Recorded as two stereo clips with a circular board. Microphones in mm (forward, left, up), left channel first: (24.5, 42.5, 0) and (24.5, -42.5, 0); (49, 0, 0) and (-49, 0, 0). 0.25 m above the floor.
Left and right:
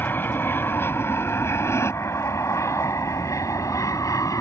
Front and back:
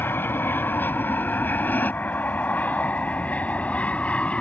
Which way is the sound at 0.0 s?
45° left.